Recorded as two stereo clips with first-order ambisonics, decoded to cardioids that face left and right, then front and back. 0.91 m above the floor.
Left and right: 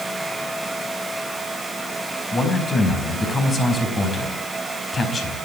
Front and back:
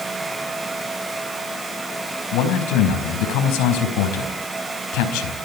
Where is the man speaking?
20° left, 5 m.